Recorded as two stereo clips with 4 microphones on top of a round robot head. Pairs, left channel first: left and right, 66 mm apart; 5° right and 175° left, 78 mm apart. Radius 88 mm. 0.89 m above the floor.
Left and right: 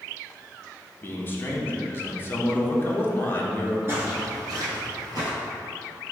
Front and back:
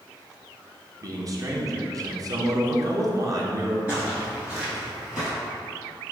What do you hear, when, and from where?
1.0 s a man speaking: 145° left, 0.8 m
3.9 s footsteps: 115° right, 0.9 m; by 5.3 s 95° right, 1.4 m